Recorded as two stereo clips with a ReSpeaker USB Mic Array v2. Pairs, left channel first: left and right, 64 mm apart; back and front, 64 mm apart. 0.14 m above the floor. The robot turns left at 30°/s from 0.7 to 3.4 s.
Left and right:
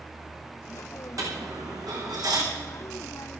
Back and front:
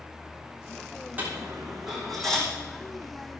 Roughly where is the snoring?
I don't hear snoring.